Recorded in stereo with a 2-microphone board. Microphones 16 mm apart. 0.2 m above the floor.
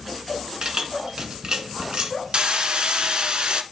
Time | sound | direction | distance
0.6 | keys jangling | 50° right (ahead or behind) | 1.6 m
2.3 | hammering | 55° right (ahead or behind) | 1.1 m